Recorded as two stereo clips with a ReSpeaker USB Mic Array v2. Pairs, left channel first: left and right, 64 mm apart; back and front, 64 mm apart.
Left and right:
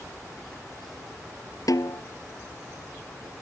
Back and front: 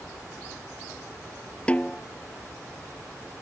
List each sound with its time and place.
1.7 s a snare drum: 110° left